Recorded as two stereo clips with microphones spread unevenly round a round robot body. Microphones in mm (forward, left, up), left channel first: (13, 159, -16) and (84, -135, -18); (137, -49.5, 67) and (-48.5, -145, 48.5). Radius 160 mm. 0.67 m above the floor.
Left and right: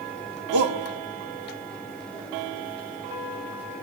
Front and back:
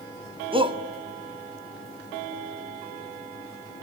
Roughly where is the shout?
Right.